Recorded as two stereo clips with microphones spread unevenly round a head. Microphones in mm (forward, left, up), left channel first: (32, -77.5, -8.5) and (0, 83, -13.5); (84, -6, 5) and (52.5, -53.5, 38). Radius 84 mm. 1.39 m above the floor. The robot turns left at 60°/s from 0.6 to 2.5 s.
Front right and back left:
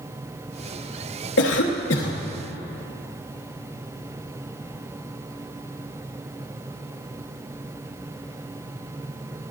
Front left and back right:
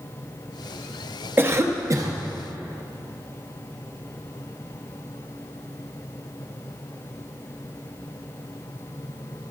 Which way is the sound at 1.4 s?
65° right.